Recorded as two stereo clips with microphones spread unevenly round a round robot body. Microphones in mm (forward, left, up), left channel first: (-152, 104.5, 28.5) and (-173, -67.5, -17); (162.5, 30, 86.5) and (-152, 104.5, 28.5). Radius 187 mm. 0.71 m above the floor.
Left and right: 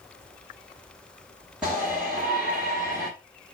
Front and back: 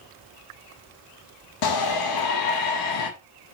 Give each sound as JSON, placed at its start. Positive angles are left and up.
{"t": 1.6, "sound": "a shout", "azimuth_deg": -15, "distance_m": 1.5}